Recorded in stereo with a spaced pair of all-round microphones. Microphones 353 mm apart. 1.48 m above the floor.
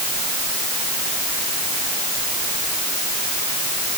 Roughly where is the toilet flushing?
No toilet flushing in this recording.